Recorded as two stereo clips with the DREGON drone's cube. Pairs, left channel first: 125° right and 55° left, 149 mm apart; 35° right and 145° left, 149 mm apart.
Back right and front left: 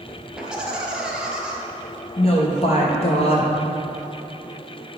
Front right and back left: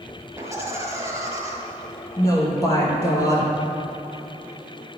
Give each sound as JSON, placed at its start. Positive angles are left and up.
{"t": 0.4, "sound": "laughter", "azimuth_deg": 130, "distance_m": 1.4}
{"t": 2.2, "sound": "a woman speaking", "azimuth_deg": -95, "distance_m": 2.0}